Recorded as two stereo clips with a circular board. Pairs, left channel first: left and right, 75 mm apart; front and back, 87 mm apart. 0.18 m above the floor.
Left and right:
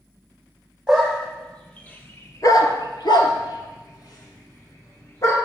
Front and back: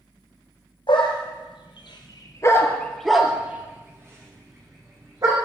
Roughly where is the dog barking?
Ahead.